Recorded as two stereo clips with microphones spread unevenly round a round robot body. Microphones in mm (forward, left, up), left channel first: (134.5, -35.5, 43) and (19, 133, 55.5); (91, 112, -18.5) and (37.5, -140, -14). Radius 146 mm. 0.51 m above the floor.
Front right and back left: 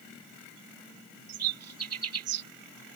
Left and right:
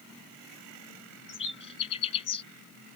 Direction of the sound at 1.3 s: 150° left.